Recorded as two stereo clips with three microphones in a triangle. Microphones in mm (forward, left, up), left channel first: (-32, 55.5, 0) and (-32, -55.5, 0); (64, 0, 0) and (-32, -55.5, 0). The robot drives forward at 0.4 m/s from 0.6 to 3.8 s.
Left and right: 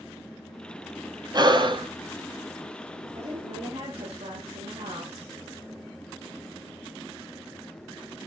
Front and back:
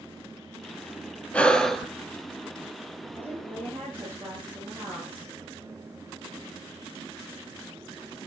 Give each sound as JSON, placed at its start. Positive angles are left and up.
{"t": 1.3, "sound": "breathing", "azimuth_deg": -45, "distance_m": 0.9}
{"t": 3.1, "sound": "a woman speaking", "azimuth_deg": -75, "distance_m": 7.5}